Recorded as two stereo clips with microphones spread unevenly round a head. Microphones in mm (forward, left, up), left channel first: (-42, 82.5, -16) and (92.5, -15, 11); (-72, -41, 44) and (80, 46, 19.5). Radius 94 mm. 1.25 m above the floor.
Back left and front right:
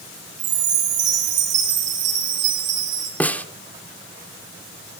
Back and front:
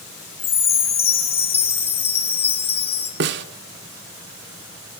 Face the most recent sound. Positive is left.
turn(degrees=60)